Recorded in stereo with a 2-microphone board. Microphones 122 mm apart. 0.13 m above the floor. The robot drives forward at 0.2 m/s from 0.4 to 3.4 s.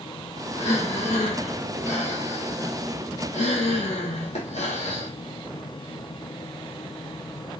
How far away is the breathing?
About 3 m.